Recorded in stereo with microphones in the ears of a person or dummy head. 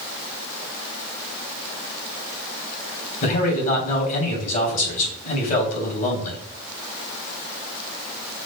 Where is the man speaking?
50° left (ahead or behind), 3.5 m.